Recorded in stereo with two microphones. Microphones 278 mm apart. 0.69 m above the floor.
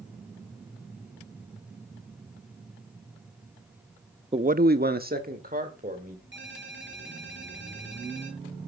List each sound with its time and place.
4.3 s a man speaking: 20° right (ahead or behind), 0.5 m; by 6.2 s 30° right (ahead or behind), 3 m
6.3 s a ringtone: 45° right (ahead or behind), 6 m